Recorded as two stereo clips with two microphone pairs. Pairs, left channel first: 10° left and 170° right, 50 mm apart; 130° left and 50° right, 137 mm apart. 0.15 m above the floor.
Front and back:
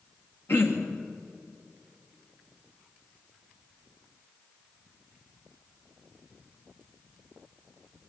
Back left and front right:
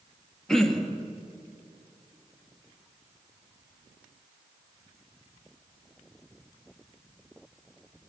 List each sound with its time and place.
0.5 s throat clearing: 45° left, 2 m